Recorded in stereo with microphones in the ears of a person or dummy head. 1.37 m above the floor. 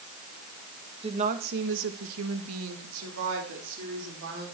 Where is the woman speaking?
30° right (ahead or behind), 1.9 m; by 4.5 s 60° right (ahead or behind), 5 m.